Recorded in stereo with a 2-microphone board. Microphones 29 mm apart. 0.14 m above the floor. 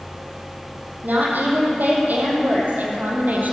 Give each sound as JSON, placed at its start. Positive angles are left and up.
{"t": 1.0, "sound": "a woman speaking", "side_deg": -75, "distance_m": 5.5}